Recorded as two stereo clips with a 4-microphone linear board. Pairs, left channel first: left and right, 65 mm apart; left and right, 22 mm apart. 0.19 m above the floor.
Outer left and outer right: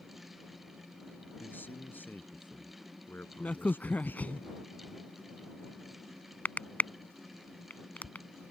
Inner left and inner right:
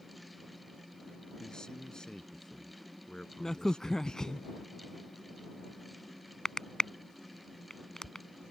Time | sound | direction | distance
1.4 | a man speaking | 30° left (ahead or behind) | ?
3.4 | a crack | 25° left (ahead or behind) | ?